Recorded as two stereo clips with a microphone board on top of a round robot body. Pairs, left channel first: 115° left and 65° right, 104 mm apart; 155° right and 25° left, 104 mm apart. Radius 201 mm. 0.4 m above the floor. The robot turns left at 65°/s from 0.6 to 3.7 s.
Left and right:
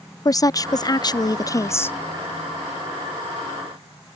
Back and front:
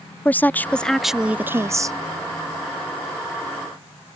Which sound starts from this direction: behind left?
A woman speaking, at 0.2 s.